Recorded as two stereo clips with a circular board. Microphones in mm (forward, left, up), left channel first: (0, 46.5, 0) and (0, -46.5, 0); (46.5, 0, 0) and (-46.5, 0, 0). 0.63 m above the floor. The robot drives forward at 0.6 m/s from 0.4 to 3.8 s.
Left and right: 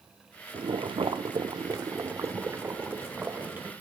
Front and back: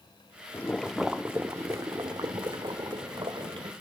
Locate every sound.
0.5 s boiling: 65° right, 0.7 m; by 3.7 s 160° right, 1.8 m